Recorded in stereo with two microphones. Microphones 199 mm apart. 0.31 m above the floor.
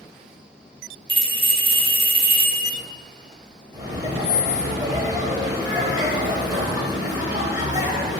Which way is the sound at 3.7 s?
20° right (ahead or behind).